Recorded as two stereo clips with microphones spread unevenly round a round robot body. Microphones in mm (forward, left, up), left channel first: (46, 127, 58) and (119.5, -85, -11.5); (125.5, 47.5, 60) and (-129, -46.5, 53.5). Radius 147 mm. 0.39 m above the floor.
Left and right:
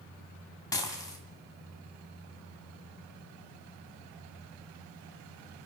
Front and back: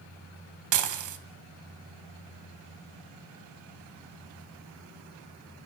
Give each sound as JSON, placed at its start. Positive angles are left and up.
{"t": 0.7, "sound": "dishes clattering", "azimuth_deg": -165, "distance_m": 2.5}